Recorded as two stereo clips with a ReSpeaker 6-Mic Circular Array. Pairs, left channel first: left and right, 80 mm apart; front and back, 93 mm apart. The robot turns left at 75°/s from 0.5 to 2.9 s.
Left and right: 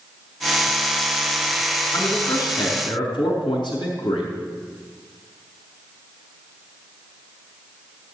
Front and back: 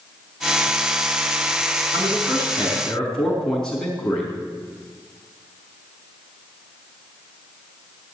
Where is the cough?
I don't hear a cough.